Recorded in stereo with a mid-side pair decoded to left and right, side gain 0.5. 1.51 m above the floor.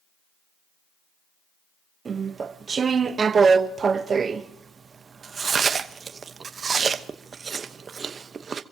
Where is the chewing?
40° right, 1.0 m.